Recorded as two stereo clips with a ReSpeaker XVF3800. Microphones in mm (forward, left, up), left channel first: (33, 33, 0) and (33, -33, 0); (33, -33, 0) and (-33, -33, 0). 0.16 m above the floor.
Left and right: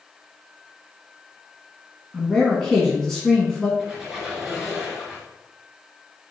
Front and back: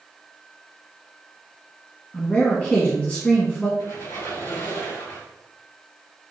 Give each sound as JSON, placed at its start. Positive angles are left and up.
{"t": 2.1, "sound": "a man speaking", "azimuth_deg": 20, "distance_m": 1.2}
{"t": 3.8, "sound": "a squeak", "azimuth_deg": -15, "distance_m": 1.9}